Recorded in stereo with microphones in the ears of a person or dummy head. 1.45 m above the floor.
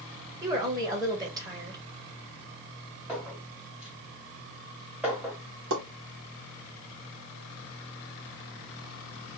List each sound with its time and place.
0.4 s a woman speaking: 20° right (ahead or behind), 1.1 m
3.1 s a clink: 5° right (ahead or behind), 1.4 m
5.7 s a pop: 65° right (ahead or behind), 1.2 m